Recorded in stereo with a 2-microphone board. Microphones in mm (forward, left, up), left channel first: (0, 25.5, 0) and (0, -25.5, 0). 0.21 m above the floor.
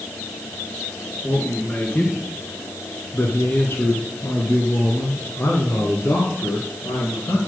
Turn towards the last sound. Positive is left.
turn(degrees=55)  # may be behind; listen again after turning